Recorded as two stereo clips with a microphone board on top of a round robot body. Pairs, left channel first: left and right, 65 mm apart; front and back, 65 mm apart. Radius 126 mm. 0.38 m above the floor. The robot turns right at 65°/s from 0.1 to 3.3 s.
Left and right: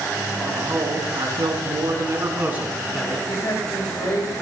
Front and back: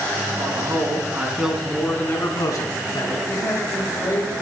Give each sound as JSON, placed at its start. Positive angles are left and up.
{"t": 0.4, "sound": "a man speaking", "azimuth_deg": -170, "distance_m": 4.0}
{"t": 3.3, "sound": "a man speaking", "azimuth_deg": 50, "distance_m": 7.0}